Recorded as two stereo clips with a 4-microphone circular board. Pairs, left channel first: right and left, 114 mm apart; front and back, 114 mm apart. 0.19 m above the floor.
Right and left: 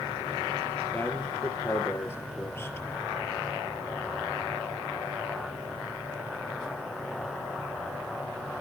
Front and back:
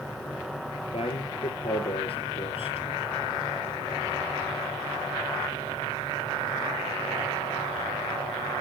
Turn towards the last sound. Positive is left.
turn(degrees=-25)